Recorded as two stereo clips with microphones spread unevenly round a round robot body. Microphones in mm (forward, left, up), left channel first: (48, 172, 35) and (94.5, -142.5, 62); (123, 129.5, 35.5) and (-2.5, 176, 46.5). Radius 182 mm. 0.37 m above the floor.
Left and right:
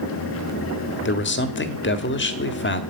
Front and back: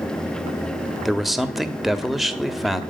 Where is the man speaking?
65° left, 1.5 m.